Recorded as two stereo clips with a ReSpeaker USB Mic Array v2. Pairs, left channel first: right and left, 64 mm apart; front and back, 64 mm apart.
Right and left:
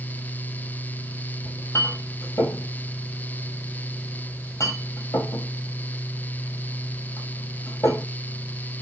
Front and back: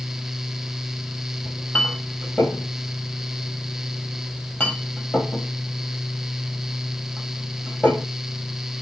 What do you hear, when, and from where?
1.4 s a clink: 65° right, 1.7 m